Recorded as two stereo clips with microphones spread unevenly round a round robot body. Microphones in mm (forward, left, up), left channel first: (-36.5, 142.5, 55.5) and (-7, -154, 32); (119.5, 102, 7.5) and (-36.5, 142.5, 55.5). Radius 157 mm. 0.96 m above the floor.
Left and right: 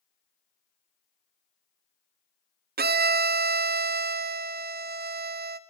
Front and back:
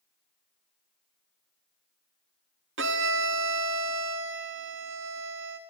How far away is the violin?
About 0.7 m.